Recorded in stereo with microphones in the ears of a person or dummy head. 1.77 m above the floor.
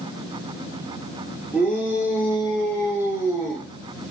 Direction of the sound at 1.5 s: Centre (ahead or behind).